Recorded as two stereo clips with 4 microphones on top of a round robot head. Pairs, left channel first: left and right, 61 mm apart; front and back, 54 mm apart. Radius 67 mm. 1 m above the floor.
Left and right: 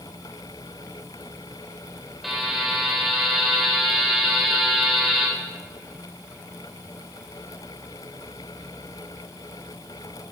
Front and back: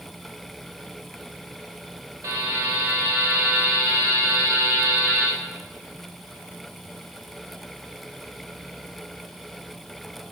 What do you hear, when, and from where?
2.2 s a buzzer: 175° right, 4 m